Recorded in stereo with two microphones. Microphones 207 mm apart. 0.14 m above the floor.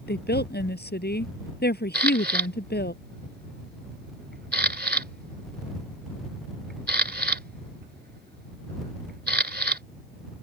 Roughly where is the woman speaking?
Left.